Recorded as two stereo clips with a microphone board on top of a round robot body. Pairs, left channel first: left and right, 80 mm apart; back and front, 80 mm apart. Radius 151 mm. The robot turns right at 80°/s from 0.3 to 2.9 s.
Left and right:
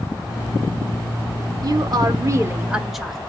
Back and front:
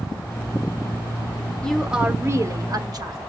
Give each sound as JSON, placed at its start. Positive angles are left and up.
{"t": 1.6, "sound": "a woman speaking", "azimuth_deg": -105, "distance_m": 1.1}